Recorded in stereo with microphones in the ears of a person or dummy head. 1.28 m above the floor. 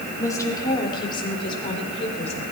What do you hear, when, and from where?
0.2 s a woman speaking: 15° left (ahead or behind), 3 m; by 2.4 s 35° left (ahead or behind), 4 m